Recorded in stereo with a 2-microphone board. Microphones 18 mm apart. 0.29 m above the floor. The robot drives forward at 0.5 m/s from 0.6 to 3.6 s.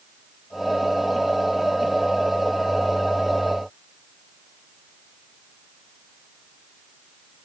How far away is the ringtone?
I don't hear a ringtone.